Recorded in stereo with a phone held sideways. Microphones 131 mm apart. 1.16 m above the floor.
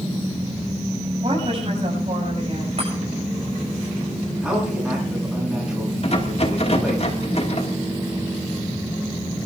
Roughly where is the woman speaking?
Right.